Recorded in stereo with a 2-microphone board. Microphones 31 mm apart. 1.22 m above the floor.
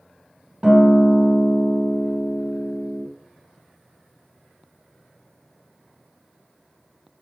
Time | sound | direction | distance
0.6 | a guitar | 20° right (ahead or behind) | 1.2 m